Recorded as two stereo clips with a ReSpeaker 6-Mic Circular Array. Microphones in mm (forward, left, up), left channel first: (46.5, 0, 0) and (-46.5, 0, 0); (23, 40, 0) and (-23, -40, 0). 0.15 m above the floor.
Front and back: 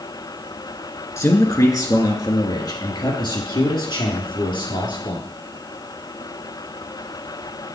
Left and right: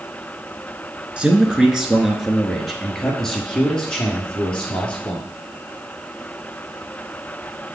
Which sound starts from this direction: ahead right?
A man speaking, at 1.2 s.